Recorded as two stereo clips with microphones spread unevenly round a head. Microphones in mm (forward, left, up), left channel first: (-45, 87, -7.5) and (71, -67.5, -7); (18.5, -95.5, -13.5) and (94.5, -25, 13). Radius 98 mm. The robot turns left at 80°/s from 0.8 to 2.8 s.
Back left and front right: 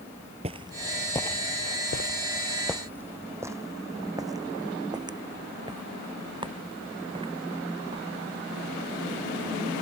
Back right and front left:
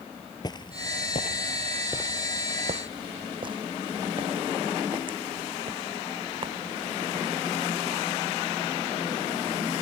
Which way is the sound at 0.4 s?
90° right.